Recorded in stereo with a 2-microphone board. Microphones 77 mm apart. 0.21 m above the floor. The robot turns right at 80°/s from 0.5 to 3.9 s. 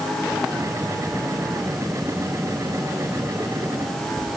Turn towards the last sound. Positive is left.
No sound to turn to.